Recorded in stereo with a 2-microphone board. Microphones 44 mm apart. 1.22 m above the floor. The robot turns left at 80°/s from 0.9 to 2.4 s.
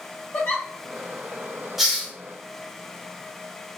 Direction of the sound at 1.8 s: 5° right (ahead or behind).